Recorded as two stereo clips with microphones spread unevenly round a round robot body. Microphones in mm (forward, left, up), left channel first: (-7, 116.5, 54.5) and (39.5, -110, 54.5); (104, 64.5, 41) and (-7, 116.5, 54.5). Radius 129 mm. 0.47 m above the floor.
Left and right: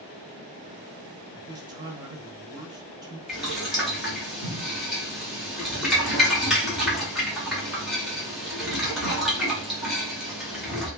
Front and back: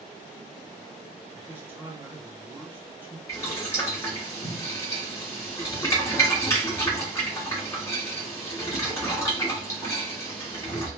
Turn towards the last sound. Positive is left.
turn(degrees=10)